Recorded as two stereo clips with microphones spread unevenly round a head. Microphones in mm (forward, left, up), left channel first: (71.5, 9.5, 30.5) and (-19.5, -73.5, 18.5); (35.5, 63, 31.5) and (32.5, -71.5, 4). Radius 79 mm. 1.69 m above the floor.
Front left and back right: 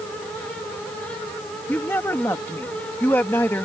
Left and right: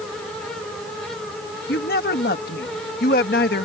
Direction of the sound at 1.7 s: 120° left.